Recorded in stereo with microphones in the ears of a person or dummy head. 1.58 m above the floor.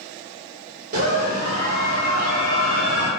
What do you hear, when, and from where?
0.9 s a scream: 50° right (ahead or behind), 1.5 m